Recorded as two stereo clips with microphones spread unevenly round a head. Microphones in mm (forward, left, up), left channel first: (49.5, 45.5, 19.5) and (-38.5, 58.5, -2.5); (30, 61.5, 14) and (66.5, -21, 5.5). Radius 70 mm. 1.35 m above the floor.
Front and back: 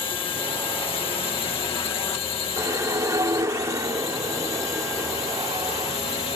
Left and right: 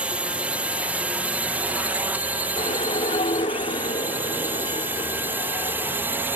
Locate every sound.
0.0 s a drone: 5° left; by 6.4 s straight ahead
2.6 s a whoosh: 110° left